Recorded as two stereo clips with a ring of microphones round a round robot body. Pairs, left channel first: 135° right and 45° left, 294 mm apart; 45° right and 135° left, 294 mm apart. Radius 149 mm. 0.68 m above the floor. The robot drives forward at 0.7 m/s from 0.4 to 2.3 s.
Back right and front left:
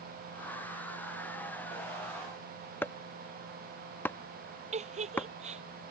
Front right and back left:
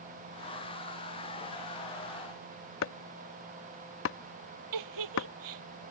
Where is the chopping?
55° right.